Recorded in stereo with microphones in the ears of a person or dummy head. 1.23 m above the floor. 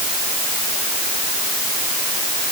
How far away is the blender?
I don't hear a blender.